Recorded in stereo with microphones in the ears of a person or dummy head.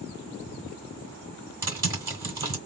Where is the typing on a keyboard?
20° right (ahead or behind), 2.5 m.